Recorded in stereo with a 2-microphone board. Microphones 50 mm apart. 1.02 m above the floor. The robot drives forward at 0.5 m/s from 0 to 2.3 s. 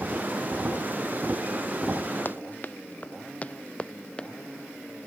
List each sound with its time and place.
2.2 s running footsteps: 40° left (ahead or behind); by 4.3 s 20° left (ahead or behind)